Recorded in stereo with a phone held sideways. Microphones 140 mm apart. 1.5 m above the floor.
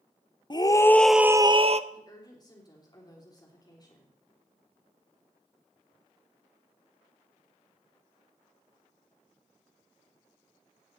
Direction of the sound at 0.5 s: 30° left (ahead or behind).